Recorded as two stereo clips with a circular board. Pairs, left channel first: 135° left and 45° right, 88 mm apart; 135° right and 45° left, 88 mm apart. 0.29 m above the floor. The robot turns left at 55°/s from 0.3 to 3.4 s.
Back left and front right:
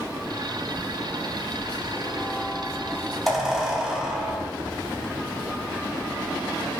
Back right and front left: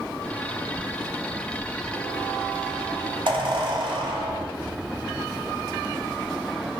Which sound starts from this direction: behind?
A squeak, at 0.8 s.